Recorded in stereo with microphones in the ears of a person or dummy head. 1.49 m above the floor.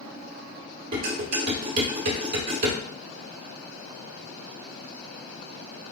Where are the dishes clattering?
55° right (ahead or behind), 3 m.